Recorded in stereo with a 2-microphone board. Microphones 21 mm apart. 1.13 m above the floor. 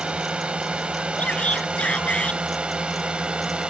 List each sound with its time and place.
0.0 s a drone: 55° right (ahead or behind); by 3.7 s 45° right (ahead or behind)
1.2 s a shout: 65° left (ahead or behind)